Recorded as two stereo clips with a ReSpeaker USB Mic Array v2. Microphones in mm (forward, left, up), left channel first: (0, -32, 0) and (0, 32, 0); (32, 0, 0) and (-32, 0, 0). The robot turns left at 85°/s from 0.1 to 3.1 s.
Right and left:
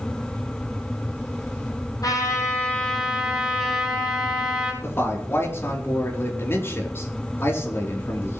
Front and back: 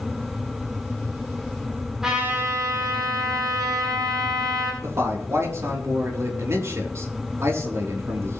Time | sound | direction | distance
2.0 | a trumpet | 95° right | 8.5 m
4.8 | a man speaking | 135° right | 5 m